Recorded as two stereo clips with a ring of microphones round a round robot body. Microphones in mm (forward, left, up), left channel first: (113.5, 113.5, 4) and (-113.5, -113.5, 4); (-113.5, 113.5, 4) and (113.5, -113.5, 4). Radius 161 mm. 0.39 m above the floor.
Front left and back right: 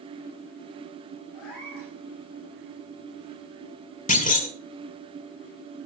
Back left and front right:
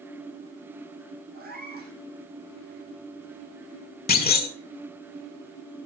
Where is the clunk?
95° left, 1.7 m.